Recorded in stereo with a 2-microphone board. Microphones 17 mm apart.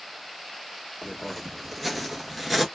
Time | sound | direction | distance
1.0 | footsteps | 10° left (ahead or behind) | 1.4 m